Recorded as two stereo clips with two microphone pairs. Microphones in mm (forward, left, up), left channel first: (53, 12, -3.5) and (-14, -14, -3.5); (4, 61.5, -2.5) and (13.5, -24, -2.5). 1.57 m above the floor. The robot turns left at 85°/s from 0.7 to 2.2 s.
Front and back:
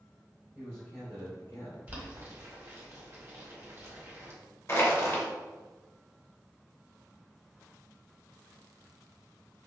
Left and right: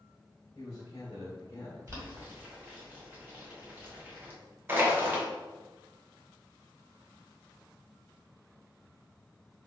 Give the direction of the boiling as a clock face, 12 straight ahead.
4 o'clock.